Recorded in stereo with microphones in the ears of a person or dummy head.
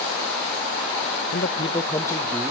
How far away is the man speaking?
About 0.7 m.